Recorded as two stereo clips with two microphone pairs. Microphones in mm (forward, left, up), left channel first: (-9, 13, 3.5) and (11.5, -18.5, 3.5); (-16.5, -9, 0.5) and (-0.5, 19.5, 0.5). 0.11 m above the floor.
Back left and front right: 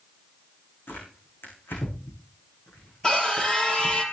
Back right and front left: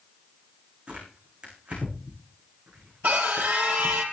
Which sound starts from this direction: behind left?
Tearing paper, at 0.9 s.